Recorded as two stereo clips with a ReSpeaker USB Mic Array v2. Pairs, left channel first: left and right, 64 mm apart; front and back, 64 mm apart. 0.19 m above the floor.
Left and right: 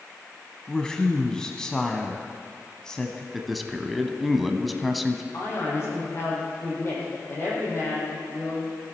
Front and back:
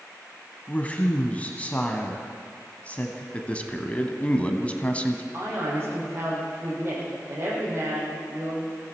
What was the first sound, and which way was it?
A woman speaking, 25° left.